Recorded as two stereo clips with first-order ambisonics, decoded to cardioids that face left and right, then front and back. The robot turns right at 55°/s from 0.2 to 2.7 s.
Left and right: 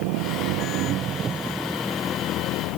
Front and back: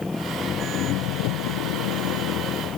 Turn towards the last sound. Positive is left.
turn(degrees=55)